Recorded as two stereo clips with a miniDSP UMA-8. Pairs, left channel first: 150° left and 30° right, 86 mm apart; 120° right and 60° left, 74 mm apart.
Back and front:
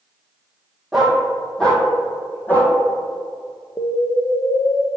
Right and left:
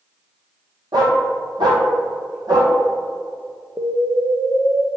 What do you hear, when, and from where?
0.9 s a dog barking: 55° left, 2.0 m; by 2.7 s 85° left, 2.5 m
3.8 s an explosion: 100° left, 1.1 m